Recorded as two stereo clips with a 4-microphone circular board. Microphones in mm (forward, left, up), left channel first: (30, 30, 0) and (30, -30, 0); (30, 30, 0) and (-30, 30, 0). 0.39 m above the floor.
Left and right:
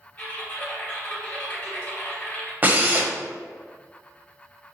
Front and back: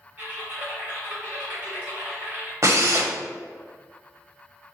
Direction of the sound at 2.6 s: 150° right.